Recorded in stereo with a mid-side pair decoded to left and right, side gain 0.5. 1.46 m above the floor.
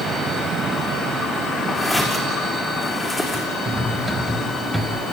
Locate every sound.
1.8 s footsteps: 10° left, 6.5 m
3.6 s cutlery clinking: 10° right, 5.5 m